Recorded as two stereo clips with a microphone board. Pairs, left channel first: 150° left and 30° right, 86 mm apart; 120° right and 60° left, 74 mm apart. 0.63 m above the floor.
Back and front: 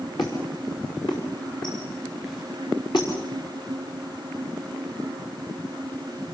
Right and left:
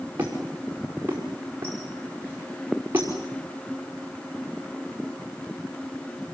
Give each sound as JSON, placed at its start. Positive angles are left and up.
{"t": 0.2, "sound": "a squeak", "azimuth_deg": 120, "distance_m": 5.5}